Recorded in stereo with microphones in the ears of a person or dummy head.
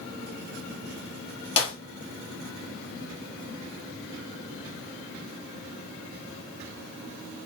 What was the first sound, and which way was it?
A clap, 25° left (ahead or behind).